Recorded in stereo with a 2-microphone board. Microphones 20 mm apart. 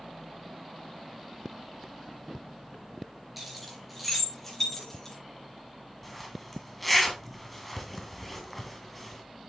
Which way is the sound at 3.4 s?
10° right (ahead or behind).